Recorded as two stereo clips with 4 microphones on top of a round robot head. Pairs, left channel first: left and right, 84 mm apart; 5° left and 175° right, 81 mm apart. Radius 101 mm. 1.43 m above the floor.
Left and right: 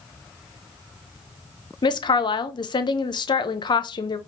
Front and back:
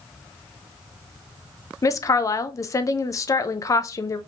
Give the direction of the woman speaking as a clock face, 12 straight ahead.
10 o'clock.